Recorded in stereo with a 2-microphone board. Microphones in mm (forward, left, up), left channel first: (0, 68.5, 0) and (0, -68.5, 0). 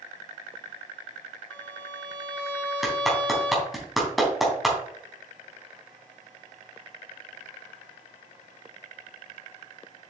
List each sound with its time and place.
1.5 s a violin: 15° left (ahead or behind), 1.7 m
2.8 s a clap: centre (ahead or behind), 3 m